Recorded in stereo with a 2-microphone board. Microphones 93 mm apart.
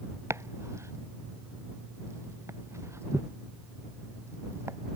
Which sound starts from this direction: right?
Chopping, at 0.3 s.